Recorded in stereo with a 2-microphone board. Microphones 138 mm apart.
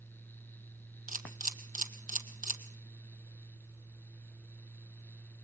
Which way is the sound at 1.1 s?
80° right.